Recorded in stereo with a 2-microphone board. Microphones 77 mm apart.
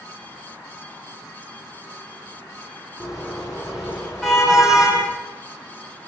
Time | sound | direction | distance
3.0 | a car horn | 10° right (ahead or behind) | 8 m